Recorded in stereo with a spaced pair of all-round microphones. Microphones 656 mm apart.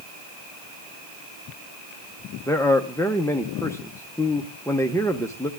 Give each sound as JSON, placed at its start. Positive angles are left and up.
{"t": 2.5, "sound": "a man speaking", "side_deg": 5, "distance_m": 0.6}